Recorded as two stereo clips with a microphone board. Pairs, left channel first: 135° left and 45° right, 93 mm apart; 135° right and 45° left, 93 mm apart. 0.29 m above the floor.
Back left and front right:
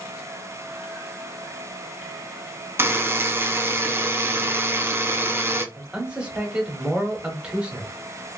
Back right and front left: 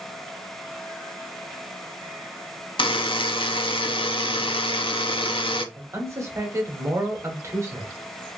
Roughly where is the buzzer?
Right.